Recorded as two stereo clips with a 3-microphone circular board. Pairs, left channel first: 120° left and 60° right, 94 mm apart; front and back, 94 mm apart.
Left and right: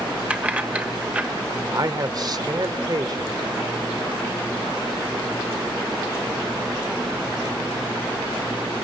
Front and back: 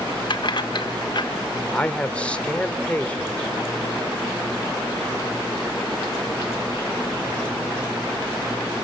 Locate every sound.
0.3 s keys jangling: 10° left, 1.1 m
1.7 s a man speaking: 70° right, 1.4 m